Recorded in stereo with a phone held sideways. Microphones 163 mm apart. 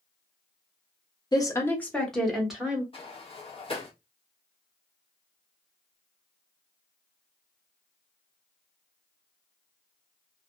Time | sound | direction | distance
1.3 | a woman speaking | 25° left (ahead or behind) | 0.7 m
2.9 | a sliding door | 35° left (ahead or behind) | 0.9 m